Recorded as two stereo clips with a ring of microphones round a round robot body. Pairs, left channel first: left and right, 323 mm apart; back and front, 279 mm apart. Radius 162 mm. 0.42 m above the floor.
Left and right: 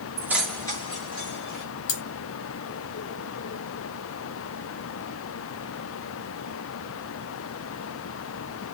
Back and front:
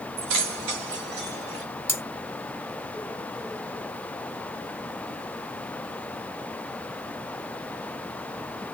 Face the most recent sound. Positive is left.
turn(degrees=100)